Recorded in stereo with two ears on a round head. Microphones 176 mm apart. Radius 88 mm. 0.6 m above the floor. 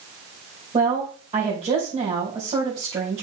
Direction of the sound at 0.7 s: 30° right (ahead or behind).